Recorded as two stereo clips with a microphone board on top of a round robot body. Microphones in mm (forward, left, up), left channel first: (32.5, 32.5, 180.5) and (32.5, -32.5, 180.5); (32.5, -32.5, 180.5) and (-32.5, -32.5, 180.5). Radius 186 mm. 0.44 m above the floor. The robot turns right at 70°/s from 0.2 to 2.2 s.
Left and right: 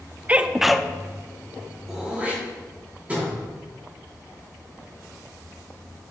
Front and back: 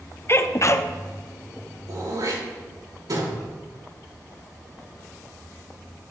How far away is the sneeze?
About 0.9 m.